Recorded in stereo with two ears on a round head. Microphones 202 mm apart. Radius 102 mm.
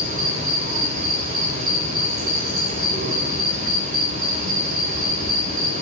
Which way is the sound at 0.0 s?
35° right (ahead or behind).